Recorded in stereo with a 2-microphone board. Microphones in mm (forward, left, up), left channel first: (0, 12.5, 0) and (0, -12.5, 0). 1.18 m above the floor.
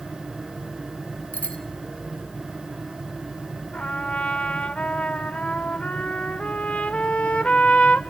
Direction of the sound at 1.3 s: 90° left.